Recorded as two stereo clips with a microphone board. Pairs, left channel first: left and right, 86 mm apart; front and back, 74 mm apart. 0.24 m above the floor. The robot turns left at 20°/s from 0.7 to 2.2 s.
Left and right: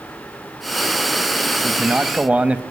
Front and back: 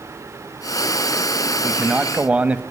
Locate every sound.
1.6 s a man speaking: 125° right, 1.2 m; by 2.6 s 140° right, 1.2 m